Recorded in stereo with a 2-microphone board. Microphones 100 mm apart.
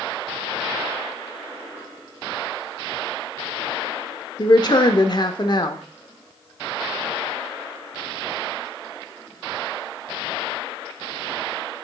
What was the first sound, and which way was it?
A woman speaking, 45° left (ahead or behind).